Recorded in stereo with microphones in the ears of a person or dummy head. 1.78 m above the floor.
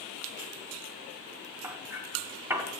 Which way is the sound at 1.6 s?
10° right (ahead or behind).